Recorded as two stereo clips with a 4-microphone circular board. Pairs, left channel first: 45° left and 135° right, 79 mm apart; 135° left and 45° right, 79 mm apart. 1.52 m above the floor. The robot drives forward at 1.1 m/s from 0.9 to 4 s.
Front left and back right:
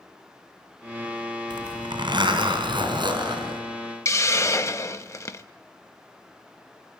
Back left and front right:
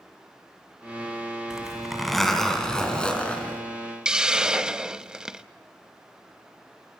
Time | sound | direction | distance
1.5 | a zipper | 125° right | 3 m
4.0 | a hiss | 30° left | 0.9 m